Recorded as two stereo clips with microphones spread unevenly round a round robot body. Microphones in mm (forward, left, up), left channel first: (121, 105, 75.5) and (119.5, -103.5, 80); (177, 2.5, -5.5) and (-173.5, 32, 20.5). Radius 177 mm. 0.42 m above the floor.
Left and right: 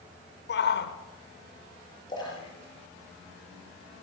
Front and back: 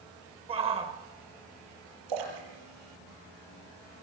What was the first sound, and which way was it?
A shout, 100° left.